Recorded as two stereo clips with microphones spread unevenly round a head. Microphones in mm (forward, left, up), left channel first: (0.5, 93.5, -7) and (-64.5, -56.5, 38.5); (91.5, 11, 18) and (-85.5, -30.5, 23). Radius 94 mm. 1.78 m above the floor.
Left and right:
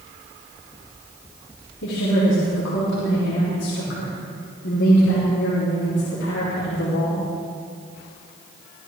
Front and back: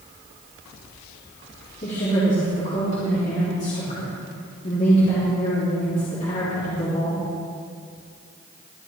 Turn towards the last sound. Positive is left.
turn(degrees=65)